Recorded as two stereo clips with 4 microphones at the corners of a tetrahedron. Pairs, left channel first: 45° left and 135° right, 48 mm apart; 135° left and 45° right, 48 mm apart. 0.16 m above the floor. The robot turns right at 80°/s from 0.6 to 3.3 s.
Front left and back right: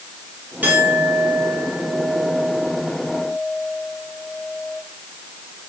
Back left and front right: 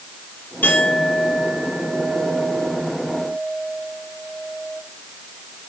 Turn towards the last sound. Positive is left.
turn(degrees=30)